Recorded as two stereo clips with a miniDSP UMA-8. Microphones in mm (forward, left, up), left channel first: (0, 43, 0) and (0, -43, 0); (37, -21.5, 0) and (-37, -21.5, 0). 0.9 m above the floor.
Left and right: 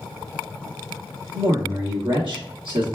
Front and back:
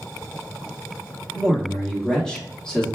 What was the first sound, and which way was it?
A man speaking, 80° right.